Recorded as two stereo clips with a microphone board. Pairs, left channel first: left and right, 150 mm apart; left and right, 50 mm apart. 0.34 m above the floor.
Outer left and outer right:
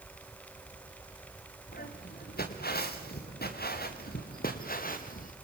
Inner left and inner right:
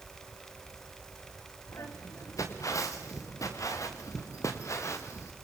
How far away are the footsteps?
About 4 m.